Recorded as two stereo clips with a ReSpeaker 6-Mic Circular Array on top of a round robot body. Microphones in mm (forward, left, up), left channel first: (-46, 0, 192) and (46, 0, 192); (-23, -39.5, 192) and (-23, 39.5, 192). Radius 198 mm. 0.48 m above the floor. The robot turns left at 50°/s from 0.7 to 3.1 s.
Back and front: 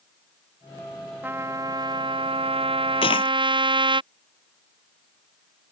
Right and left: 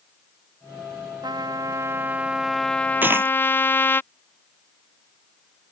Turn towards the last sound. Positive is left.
turn(degrees=150)